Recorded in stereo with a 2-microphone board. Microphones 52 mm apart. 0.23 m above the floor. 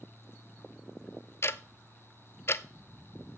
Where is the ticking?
50° left (ahead or behind), 0.6 m.